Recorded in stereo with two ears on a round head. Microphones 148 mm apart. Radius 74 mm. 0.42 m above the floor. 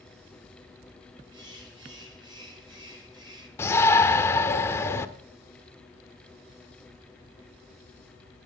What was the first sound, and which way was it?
A bird, 25° right (ahead or behind).